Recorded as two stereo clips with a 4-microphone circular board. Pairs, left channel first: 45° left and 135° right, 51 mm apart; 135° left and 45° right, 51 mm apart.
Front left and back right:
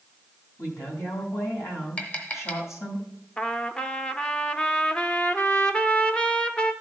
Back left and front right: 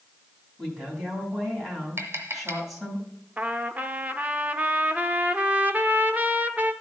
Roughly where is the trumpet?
Ahead.